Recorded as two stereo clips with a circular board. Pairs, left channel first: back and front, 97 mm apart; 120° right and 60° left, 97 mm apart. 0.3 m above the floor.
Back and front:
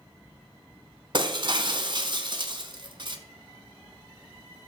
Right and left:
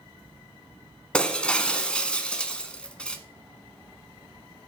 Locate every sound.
1.1 s breaking glass: 40° right, 1.1 m